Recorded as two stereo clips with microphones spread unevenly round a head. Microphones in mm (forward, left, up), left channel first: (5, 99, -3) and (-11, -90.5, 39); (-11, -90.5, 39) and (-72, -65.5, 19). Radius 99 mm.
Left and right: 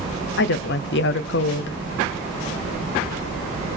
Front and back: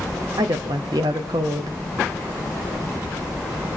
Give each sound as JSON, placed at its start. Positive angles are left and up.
{"t": 0.4, "sound": "a woman speaking", "azimuth_deg": 115, "distance_m": 0.7}